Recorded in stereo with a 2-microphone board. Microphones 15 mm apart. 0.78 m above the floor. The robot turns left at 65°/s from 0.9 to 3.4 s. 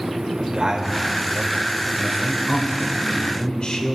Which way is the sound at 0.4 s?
120° right.